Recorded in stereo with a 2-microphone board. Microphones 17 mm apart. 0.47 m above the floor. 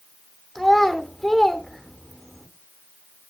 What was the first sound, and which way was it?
A child speaking, 25° left (ahead or behind).